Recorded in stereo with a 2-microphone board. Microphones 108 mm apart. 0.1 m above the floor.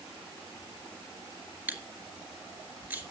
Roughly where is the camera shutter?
Centre.